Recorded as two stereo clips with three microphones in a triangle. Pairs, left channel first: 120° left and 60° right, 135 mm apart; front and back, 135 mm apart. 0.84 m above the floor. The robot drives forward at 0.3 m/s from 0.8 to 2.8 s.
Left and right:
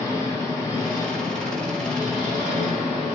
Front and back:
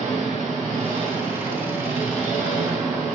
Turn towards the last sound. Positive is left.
turn(degrees=180)